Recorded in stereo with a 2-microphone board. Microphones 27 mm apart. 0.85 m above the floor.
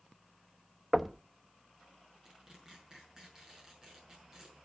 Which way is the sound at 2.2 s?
25° right (ahead or behind).